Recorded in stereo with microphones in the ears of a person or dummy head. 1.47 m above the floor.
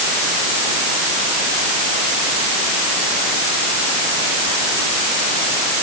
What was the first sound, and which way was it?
Only background noise.